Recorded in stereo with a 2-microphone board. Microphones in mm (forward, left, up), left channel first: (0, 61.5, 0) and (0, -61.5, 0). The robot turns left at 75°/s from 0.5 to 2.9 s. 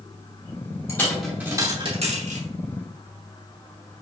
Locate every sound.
0.9 s a dropped coin: 25° left (ahead or behind), 3.5 m; by 2.5 s 85° right, 3.5 m